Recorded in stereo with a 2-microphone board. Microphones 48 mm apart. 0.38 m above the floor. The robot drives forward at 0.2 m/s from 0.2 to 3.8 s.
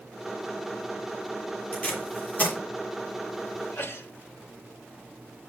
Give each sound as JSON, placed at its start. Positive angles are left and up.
{"t": 1.7, "sound": "tape being pulled", "side_deg": 35, "distance_m": 7.0}
{"t": 3.6, "sound": "a sneeze", "side_deg": 65, "distance_m": 2.0}